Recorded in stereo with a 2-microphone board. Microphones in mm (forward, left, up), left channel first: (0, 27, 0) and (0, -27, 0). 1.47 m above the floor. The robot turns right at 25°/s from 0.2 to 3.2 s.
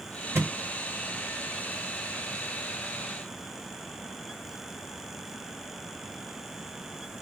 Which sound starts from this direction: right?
A thud, at 0.3 s.